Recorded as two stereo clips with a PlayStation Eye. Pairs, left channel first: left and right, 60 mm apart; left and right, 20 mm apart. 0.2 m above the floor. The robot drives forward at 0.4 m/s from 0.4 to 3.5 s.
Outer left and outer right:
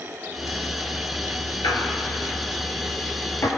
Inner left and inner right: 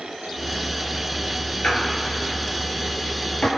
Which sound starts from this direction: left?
A squeak, at 1.6 s.